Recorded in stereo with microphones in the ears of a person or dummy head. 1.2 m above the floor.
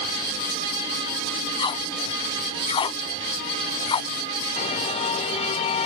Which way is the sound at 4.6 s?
30° left (ahead or behind).